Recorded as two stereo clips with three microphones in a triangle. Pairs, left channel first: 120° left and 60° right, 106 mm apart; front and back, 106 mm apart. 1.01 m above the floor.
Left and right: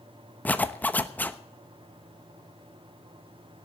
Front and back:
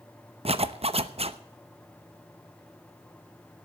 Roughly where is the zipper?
Behind.